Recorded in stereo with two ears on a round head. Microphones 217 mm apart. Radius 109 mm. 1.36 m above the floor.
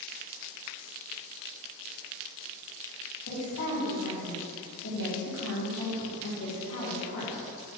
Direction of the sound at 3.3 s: 65° left (ahead or behind).